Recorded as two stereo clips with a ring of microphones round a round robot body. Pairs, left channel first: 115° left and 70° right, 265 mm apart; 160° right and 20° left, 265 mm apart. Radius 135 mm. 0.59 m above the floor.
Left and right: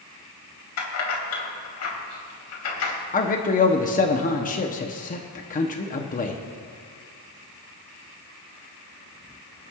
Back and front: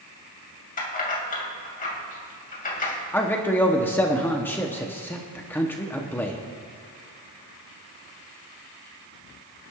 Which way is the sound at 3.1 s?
130° left.